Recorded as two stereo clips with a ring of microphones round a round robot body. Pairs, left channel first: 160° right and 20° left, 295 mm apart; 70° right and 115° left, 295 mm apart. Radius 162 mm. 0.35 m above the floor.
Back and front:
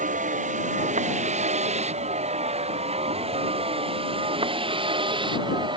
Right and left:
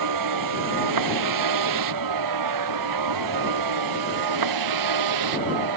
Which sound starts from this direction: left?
A vehicle, at 0.0 s.